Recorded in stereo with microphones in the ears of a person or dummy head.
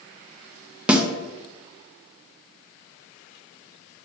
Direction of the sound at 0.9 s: Centre (ahead or behind).